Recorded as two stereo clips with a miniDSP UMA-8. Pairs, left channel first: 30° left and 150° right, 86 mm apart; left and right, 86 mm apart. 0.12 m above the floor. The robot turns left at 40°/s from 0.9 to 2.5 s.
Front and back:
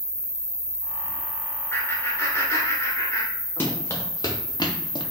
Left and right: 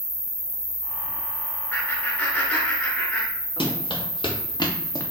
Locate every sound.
0.0 s an insect: 110° left, 1.5 m; by 5.1 s 45° left, 1.5 m
1.7 s laughter: 60° left, 1.2 m; by 3.8 s 30° left, 1.2 m
3.6 s running footsteps: 95° left, 1.3 m; by 5.0 s 35° left, 0.7 m